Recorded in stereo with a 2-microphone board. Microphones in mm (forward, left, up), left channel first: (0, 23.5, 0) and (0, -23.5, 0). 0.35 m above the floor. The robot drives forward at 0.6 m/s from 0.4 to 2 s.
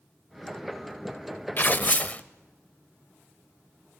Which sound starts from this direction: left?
Tearing paper, at 1.6 s.